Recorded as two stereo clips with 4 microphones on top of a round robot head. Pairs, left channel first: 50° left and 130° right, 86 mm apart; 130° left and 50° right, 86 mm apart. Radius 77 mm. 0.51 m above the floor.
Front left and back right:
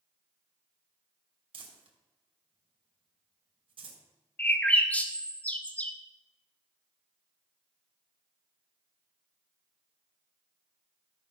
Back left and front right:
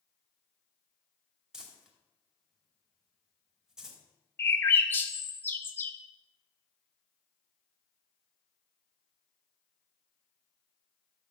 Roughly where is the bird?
Left.